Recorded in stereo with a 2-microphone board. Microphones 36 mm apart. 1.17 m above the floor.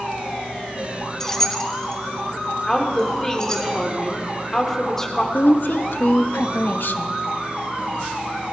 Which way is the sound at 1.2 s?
10° left (ahead or behind).